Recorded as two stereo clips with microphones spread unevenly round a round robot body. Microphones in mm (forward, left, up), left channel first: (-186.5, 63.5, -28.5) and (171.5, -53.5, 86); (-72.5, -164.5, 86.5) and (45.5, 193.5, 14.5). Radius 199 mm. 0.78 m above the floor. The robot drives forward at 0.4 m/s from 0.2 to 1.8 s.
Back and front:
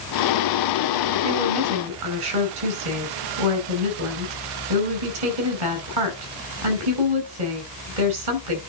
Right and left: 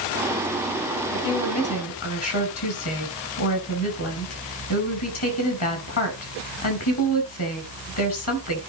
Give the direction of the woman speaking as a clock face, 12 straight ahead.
2 o'clock.